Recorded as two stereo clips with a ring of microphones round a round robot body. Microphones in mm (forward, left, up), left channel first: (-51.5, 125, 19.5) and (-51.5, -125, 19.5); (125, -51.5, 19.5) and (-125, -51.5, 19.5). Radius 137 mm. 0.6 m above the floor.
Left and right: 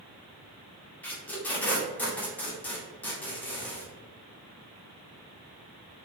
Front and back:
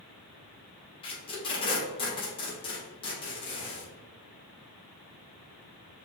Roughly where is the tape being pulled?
Ahead.